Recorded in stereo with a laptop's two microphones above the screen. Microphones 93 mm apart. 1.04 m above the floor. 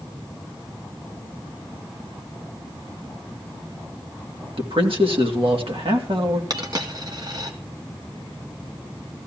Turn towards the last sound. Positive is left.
turn(degrees=-45)  # may be behind; listen again after turning